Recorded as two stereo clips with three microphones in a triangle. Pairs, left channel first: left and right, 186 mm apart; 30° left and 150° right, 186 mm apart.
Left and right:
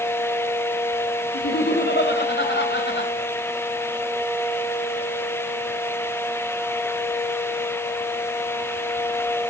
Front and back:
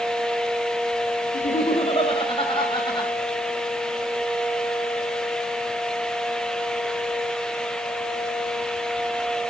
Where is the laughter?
75° left, 2.5 m; by 3.1 s 95° left, 5 m.